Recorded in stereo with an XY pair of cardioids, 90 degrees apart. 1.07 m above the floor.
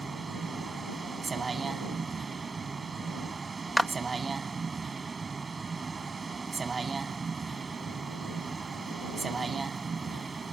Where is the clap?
10° right.